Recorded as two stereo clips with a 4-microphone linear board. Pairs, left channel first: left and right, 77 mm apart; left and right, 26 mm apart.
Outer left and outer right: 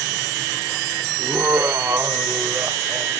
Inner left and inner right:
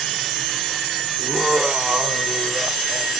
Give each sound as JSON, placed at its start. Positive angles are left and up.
{"t": 1.2, "sound": "laughter", "side_deg": -25, "distance_m": 1.0}